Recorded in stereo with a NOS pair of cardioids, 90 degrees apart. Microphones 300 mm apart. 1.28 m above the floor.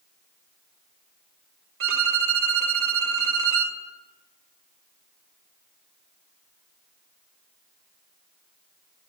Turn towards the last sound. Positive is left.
turn(degrees=-45)